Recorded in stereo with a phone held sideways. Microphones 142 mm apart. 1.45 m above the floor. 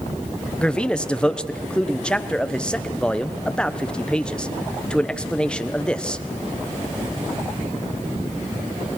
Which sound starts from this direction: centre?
A man speaking, at 0.6 s.